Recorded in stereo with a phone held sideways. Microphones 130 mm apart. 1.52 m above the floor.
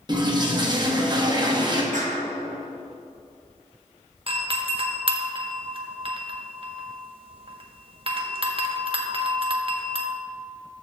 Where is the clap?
75° right (ahead or behind), 1.4 m.